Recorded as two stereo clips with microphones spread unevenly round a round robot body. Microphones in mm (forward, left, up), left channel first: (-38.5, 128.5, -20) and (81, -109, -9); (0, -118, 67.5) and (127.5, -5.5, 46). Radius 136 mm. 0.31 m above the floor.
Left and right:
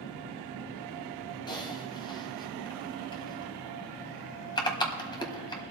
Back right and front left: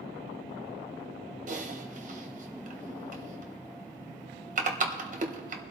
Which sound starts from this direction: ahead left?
Typing on a keyboard, at 1.5 s.